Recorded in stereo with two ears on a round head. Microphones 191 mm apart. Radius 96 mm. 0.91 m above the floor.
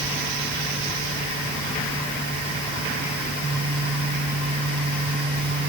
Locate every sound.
Only background noise.